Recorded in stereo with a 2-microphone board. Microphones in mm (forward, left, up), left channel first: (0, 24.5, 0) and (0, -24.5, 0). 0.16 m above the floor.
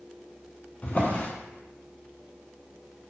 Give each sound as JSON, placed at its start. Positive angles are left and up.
{"t": 0.8, "sound": "a drawer", "side_deg": 35, "distance_m": 0.6}